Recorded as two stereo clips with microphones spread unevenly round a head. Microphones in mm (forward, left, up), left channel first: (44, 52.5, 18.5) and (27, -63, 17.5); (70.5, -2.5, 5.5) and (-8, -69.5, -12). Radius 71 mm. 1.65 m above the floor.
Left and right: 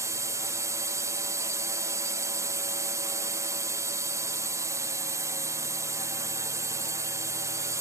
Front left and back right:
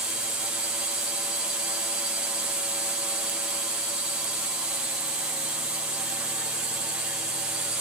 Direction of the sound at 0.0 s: 85° right.